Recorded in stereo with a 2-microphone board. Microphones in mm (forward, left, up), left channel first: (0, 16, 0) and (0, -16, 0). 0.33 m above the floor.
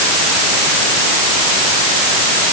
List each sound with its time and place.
Only background noise.